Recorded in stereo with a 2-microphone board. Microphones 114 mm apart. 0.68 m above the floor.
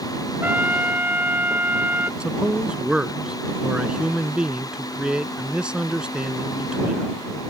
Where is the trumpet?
15° right (ahead or behind).